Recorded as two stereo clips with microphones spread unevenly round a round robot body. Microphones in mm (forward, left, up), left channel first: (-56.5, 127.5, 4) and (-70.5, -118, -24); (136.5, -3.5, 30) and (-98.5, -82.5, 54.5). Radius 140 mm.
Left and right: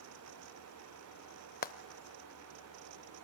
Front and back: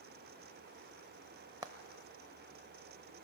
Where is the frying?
130° left, 0.7 m.